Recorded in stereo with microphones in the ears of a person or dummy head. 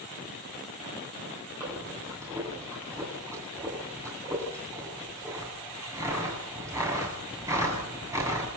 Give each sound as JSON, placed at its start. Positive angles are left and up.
{"t": 1.6, "sound": "breathing", "side_deg": -15, "distance_m": 8.0}